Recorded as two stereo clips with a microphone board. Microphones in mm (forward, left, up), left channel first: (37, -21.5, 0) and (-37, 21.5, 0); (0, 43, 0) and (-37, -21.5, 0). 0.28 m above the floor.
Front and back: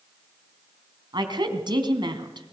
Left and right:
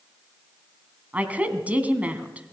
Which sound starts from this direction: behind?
A woman speaking, at 1.1 s.